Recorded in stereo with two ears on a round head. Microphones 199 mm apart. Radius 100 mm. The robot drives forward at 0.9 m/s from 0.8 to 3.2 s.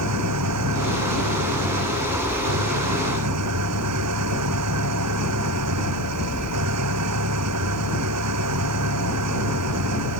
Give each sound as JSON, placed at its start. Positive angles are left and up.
{"t": 0.0, "sound": "an engine running", "side_deg": -85}